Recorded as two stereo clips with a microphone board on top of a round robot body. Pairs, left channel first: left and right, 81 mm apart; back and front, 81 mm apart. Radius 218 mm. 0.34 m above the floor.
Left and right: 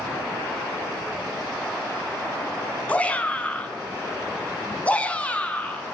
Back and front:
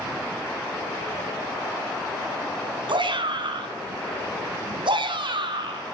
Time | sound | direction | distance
2.9 | a shout | 15° left | 5.5 m